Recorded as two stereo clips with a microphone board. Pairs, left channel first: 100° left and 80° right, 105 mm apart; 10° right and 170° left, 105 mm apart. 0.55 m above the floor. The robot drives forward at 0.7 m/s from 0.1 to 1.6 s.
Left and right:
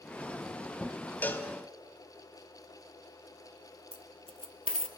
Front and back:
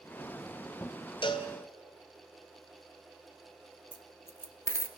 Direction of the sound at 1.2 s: 25° left.